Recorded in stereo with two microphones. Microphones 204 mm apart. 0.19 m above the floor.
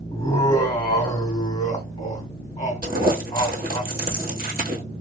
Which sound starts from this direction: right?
Crumpling, at 2.8 s.